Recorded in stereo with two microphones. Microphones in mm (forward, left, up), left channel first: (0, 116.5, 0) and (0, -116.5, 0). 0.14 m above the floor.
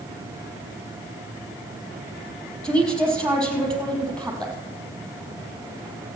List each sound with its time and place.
2.6 s a woman speaking: 5° left (ahead or behind), 4.5 m